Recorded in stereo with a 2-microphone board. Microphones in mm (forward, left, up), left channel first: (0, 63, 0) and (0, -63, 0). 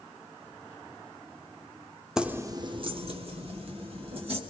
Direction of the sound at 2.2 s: 5° right (ahead or behind).